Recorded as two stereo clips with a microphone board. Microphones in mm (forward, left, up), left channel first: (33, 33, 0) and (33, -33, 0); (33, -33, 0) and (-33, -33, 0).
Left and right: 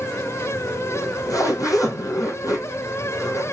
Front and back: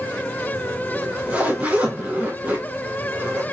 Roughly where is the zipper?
Behind left.